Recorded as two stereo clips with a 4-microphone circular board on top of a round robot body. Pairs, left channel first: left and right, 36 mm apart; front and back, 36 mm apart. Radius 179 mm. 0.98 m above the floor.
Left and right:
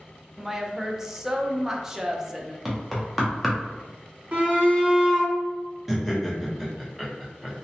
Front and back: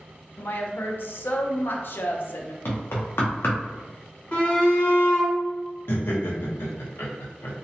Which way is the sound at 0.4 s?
15° right.